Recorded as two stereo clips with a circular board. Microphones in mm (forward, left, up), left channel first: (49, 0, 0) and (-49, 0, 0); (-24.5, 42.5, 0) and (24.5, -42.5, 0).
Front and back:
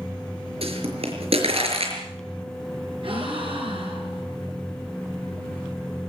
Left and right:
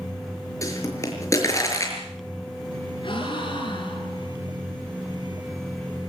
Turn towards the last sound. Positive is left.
turn(degrees=155)